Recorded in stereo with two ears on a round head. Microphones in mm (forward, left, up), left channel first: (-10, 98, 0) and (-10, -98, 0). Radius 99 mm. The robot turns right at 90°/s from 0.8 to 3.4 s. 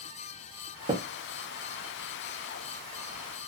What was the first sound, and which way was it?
Tapping, 30° right (ahead or behind).